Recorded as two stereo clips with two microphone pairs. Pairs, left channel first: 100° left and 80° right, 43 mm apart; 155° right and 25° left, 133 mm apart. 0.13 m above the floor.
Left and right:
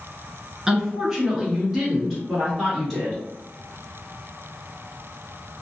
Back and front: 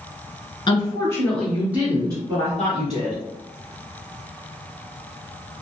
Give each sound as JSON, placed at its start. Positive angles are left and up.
{"t": 0.7, "sound": "a woman speaking", "azimuth_deg": -155, "distance_m": 1.5}